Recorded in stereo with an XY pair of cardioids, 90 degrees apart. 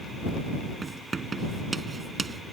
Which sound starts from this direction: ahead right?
Writing, at 0.8 s.